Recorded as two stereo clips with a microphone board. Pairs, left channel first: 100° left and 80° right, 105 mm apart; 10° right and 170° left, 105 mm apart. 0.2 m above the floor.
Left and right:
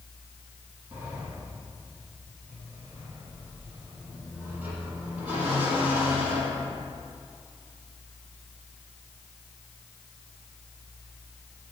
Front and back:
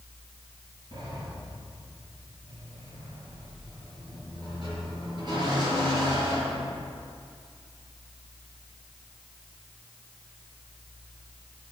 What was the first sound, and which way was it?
A sliding door, 155° right.